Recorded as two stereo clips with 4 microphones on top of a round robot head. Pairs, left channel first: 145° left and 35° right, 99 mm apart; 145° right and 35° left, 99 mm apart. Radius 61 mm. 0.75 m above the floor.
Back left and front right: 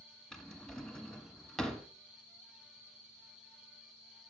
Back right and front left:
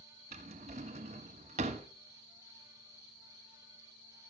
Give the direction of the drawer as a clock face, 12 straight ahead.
10 o'clock.